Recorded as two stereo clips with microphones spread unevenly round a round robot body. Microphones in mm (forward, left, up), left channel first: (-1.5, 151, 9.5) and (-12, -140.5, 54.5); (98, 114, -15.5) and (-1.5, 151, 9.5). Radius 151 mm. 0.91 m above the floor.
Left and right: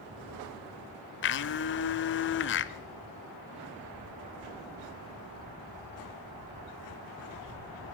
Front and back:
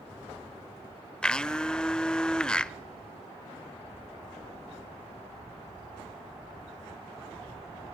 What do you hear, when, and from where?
1.2 s a blender: 80° left, 0.6 m